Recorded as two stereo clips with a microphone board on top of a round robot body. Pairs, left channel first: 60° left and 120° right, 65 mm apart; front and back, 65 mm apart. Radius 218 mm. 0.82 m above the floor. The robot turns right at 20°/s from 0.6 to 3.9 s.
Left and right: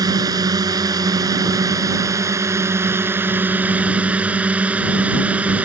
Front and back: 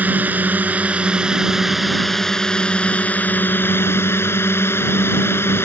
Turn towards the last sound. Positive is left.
turn(degrees=-50)